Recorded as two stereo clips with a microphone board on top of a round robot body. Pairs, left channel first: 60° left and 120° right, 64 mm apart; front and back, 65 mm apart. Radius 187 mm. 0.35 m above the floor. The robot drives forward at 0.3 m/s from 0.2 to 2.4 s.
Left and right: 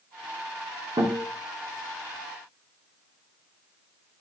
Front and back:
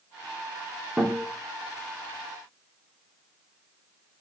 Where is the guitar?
110° right, 3.5 m.